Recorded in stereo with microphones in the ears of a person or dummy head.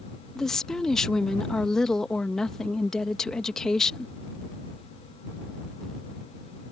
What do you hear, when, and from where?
0.3 s a woman speaking: 5° left (ahead or behind)